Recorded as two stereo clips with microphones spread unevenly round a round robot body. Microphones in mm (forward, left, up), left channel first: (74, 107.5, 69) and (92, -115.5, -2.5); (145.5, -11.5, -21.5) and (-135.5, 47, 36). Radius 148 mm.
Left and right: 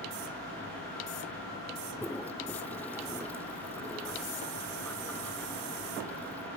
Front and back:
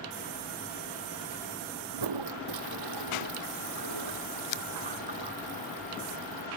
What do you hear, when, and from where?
1.9 s a toilet flushing: straight behind